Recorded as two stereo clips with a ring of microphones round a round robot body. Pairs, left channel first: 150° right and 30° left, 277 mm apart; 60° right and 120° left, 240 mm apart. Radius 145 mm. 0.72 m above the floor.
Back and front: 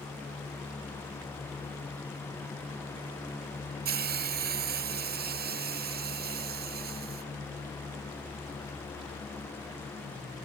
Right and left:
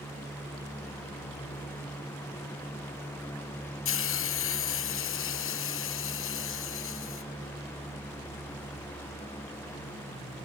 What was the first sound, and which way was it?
A hiss, 25° right.